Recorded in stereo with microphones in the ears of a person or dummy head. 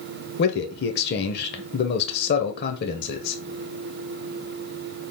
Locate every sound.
0.4 s a man speaking: 60° left (ahead or behind), 0.8 m